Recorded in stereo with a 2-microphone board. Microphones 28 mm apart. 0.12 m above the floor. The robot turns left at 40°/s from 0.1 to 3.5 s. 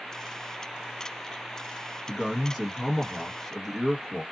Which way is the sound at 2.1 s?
5° right (ahead or behind).